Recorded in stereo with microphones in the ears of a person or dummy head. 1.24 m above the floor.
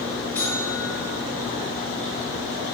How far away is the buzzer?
About 5 m.